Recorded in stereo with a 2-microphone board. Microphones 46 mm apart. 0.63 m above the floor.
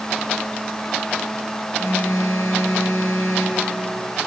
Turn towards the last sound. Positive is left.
turn(degrees=75)  # may be behind; listen again after turning